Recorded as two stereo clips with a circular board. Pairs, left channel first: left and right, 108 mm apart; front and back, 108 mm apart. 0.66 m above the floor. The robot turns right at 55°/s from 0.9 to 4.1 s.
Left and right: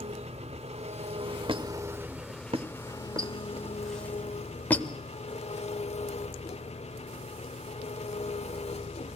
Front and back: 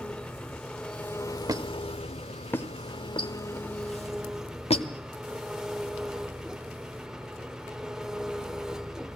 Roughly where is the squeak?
Behind right.